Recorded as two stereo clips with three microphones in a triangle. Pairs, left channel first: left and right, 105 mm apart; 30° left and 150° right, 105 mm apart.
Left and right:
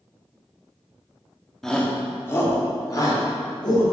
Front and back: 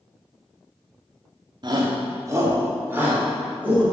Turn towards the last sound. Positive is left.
turn(degrees=135)